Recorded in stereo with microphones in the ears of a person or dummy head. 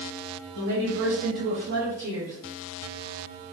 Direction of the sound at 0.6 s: 65° right (ahead or behind).